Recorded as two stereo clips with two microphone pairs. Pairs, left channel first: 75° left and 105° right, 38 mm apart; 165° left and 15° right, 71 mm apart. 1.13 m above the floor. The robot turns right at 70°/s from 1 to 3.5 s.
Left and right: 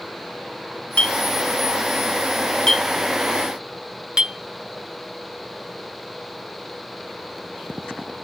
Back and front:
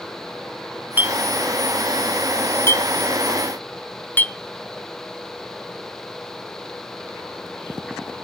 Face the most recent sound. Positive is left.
turn(degrees=-155)